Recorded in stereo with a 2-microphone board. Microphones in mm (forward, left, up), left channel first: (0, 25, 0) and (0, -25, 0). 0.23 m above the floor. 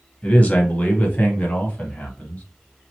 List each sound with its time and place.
0.2 s a man speaking: 25° left (ahead or behind), 1.0 m; by 2.4 s 30° left (ahead or behind), 1.7 m